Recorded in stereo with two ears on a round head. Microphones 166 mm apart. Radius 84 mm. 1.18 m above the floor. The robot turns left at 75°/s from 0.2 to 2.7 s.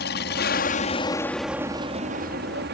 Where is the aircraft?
60° left (ahead or behind); by 2.7 s 60° right (ahead or behind).